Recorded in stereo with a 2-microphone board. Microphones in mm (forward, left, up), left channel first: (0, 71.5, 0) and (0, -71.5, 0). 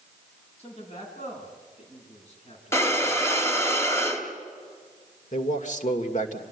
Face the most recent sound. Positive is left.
turn(degrees=55)  # may be behind; listen again after turning